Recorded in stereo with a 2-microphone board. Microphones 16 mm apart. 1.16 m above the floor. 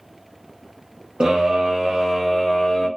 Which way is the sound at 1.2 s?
60° right (ahead or behind).